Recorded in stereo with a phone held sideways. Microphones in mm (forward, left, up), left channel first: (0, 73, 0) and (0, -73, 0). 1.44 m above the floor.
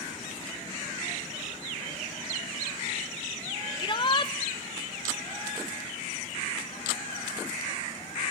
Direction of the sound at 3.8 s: 35° left (ahead or behind).